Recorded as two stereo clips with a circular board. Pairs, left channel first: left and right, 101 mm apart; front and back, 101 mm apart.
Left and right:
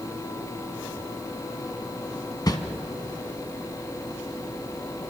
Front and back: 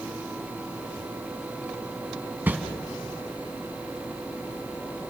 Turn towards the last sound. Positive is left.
turn(degrees=115)